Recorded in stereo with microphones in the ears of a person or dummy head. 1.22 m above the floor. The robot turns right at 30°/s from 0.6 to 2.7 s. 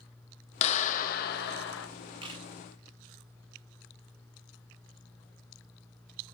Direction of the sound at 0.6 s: 35° left.